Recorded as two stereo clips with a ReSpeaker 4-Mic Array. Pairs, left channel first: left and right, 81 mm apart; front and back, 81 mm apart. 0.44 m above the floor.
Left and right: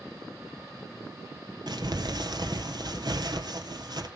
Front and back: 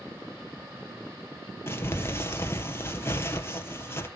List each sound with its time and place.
1.7 s crumpling: 60° right, 2 m